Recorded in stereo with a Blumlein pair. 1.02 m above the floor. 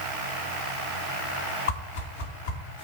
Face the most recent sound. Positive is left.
turn(degrees=60)